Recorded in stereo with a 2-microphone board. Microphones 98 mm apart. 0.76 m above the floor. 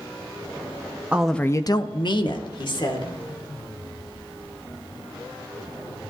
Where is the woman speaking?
15° right (ahead or behind), 0.6 m; by 3.1 s 50° left (ahead or behind), 2 m.